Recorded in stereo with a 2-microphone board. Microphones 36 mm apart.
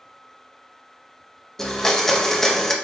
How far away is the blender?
About 0.7 m.